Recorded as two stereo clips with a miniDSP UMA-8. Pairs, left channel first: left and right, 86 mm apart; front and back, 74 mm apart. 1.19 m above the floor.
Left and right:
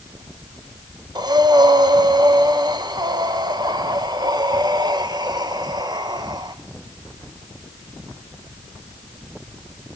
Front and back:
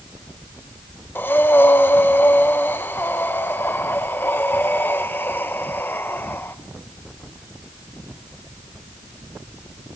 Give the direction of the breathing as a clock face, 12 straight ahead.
2 o'clock.